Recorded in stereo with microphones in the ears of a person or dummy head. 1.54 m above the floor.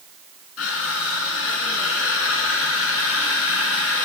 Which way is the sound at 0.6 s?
70° left (ahead or behind).